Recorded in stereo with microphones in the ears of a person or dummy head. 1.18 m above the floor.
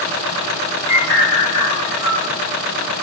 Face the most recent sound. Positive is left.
turn(degrees=-70)  # may be behind; listen again after turning